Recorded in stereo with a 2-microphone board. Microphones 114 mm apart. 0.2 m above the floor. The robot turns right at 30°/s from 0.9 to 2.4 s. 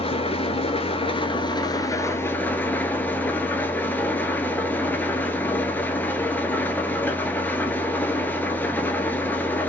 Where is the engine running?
120° left, 0.7 m; by 9.7 s 165° left, 0.7 m.